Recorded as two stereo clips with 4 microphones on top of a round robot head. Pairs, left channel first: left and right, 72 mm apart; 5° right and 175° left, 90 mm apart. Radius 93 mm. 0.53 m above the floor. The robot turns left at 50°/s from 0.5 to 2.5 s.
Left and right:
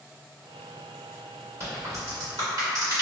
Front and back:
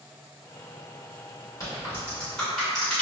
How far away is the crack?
About 1.6 m.